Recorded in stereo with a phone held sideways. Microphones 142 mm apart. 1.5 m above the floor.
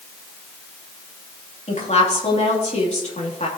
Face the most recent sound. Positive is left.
turn(degrees=50)  # may be behind; listen again after turning